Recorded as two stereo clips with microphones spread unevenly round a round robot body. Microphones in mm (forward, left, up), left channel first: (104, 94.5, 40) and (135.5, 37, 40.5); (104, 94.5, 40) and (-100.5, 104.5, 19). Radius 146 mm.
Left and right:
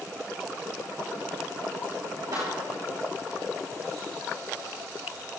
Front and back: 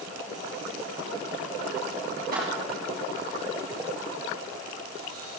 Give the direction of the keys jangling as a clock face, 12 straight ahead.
4 o'clock.